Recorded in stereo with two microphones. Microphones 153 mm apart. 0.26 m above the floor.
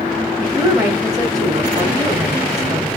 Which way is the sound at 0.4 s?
25° right (ahead or behind).